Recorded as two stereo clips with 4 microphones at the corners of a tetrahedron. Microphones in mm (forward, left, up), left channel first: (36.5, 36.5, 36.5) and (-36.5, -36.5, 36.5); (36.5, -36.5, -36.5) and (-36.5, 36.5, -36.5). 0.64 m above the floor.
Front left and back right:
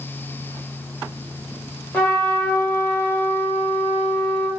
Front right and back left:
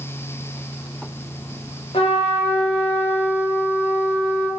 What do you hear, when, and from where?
1.9 s a trumpet: 25° right, 1.2 m